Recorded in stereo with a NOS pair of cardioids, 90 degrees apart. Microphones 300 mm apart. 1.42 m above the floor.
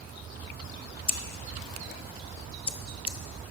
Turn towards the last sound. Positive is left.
turn(degrees=20)